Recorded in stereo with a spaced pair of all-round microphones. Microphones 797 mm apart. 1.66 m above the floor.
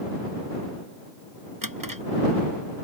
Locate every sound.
1.6 s a drawer: 25° right (ahead or behind)